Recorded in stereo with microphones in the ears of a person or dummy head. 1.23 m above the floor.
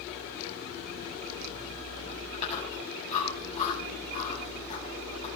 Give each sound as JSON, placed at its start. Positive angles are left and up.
{"t": 2.3, "sound": "chewing", "side_deg": 35, "distance_m": 8.0}